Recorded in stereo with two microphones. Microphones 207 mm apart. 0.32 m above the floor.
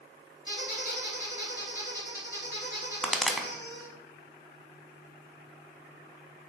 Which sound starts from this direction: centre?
A pop, at 3.0 s.